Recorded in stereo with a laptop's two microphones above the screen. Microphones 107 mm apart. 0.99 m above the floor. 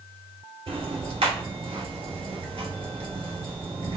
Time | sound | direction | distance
0.7 | ticking | 65° right (ahead or behind) | 2.5 m